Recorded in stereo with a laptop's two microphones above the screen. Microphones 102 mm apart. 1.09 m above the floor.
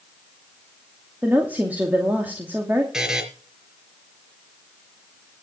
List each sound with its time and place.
1.2 s a woman speaking: 15° right (ahead or behind), 2.5 m
2.9 s a buzzer: 5° right (ahead or behind), 3.5 m